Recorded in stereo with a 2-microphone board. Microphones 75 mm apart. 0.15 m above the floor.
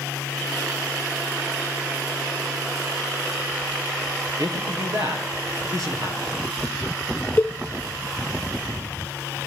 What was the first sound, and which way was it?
A man speaking, 55° right (ahead or behind).